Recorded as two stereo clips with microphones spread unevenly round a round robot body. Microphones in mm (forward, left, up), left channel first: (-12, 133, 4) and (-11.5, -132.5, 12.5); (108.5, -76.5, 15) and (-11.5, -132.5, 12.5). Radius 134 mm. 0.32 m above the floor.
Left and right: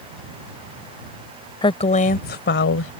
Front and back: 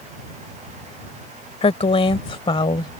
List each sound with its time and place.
1.6 s a woman speaking: 25° left; by 2.9 s 80° left